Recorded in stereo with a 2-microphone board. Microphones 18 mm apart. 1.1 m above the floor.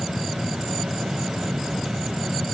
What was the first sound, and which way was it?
Only background noise.